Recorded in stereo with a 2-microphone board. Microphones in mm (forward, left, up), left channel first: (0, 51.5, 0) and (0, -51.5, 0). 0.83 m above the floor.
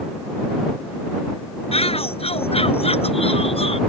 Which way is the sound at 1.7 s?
75° left (ahead or behind).